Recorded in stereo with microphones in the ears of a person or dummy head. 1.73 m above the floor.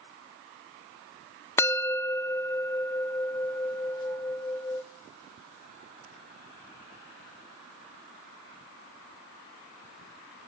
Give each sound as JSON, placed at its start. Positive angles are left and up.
{"t": 1.6, "sound": "a bell", "side_deg": 15, "distance_m": 0.8}